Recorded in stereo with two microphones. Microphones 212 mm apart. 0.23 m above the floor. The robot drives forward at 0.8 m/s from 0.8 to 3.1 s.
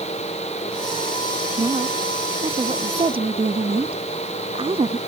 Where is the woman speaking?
25° right (ahead or behind).